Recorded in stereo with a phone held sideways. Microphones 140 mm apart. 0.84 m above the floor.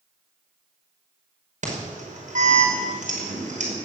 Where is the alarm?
65° right (ahead or behind), 5.5 m.